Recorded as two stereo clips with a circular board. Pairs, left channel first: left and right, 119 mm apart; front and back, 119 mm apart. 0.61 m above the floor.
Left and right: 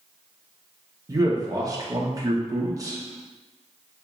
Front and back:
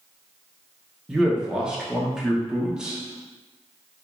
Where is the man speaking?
100° right, 0.9 m.